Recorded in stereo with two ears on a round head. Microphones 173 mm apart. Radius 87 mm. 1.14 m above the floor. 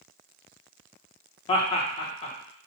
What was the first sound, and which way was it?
Laughter, 30° left (ahead or behind).